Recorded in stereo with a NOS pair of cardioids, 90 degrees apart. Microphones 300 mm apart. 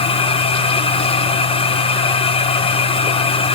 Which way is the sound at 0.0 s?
20° left.